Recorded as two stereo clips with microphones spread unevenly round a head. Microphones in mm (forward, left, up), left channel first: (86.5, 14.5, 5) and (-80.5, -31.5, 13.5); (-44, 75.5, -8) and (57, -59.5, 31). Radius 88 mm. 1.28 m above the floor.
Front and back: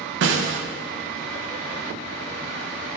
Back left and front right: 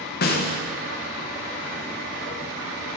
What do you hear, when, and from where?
0.2 s a snare drum: 170° left, 0.6 m